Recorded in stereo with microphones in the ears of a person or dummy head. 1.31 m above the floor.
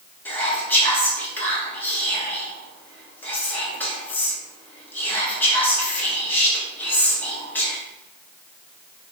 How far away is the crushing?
I don't hear crushing.